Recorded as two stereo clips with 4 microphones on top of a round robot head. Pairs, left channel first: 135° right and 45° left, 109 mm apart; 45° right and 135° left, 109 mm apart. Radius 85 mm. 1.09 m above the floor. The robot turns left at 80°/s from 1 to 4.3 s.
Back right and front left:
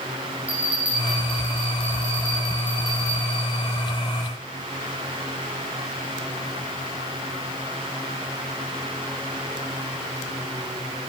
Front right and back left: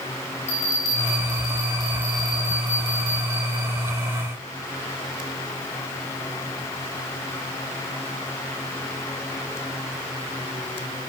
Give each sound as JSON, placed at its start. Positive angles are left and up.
{"t": 0.5, "sound": "a bell", "azimuth_deg": -35, "distance_m": 3.0}